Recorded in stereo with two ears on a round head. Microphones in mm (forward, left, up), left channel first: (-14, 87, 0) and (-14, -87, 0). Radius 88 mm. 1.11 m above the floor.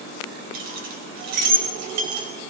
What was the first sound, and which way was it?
Keys jangling, 45° right (ahead or behind).